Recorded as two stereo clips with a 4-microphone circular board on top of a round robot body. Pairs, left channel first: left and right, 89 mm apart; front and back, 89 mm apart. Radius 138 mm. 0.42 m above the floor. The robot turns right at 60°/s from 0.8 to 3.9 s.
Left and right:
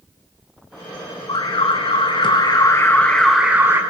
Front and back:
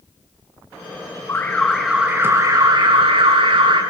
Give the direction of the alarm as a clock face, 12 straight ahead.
10 o'clock.